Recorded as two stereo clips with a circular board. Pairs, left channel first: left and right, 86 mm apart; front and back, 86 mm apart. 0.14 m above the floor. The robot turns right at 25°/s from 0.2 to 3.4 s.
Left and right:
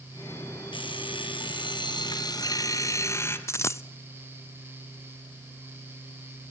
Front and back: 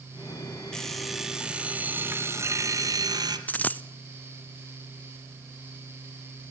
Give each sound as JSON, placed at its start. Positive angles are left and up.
{"t": 0.7, "sound": "an alarm clock", "azimuth_deg": 85, "distance_m": 1.7}
{"t": 3.5, "sound": "a dropped coin", "azimuth_deg": 60, "distance_m": 0.5}